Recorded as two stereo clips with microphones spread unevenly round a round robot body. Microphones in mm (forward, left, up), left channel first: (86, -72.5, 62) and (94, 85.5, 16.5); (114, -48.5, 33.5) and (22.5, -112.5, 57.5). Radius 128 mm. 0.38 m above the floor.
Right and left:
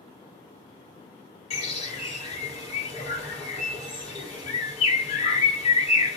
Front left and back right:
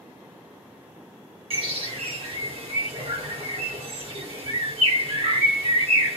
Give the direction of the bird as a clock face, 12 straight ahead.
5 o'clock.